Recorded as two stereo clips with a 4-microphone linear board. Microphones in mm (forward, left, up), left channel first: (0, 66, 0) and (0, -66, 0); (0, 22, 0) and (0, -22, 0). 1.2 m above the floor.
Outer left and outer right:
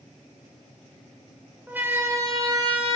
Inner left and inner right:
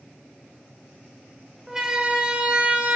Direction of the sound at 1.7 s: 10° right (ahead or behind).